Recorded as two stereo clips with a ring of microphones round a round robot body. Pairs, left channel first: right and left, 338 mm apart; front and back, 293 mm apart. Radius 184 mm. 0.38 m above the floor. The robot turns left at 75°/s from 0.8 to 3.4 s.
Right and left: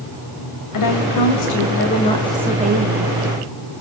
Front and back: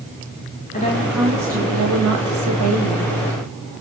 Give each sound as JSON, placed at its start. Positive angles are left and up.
{"t": 0.7, "sound": "a woman speaking", "azimuth_deg": -65, "distance_m": 2.5}